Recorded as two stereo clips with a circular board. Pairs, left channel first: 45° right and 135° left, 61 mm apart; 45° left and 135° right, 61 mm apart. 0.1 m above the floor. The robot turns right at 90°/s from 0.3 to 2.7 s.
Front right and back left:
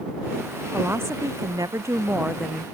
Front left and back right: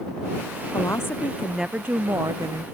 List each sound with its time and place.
0.7 s a woman speaking: 65° left; by 2.6 s 120° right